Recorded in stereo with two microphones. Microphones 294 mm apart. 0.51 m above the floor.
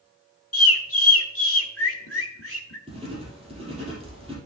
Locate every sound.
0.5 s a bird: 50° left (ahead or behind), 1.3 m
2.9 s writing: 20° right (ahead or behind), 3.5 m